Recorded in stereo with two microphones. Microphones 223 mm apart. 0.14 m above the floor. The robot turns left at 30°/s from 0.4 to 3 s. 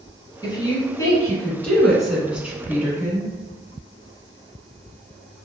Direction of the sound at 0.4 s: 20° left (ahead or behind).